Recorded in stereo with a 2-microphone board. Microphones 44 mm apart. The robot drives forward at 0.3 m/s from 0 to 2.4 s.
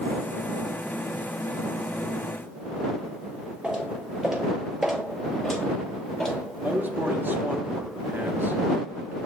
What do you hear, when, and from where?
3.6 s footsteps: 20° right (ahead or behind), 1.4 m; by 6.3 s 10° left (ahead or behind), 1.7 m
6.6 s a man speaking: 45° right (ahead or behind), 0.7 m